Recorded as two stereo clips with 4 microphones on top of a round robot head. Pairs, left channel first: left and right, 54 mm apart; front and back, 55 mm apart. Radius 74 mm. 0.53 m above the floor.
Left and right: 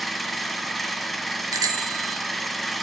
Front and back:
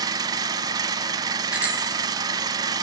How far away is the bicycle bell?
About 2.5 m.